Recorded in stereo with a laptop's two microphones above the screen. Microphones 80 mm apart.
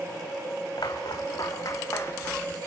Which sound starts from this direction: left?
Footsteps, at 0.8 s.